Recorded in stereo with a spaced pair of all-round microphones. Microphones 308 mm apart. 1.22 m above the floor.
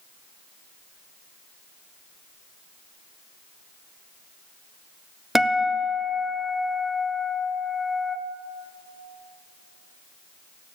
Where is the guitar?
Centre (ahead or behind), 0.8 m.